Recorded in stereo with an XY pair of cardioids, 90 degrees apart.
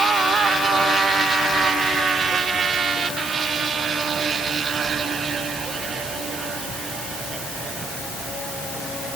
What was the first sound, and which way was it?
Only background noise.